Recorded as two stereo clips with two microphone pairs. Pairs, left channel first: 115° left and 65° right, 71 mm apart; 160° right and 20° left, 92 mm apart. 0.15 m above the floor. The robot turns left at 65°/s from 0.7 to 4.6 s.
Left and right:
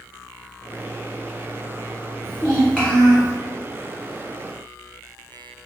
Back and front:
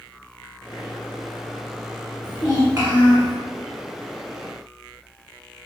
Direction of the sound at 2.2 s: 75° left.